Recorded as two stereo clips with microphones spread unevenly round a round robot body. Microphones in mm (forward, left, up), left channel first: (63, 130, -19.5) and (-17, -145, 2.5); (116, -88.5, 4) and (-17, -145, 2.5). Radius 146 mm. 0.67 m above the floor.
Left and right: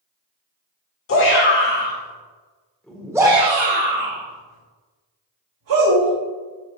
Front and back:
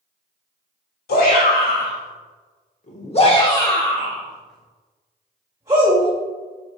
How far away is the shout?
About 2.5 m.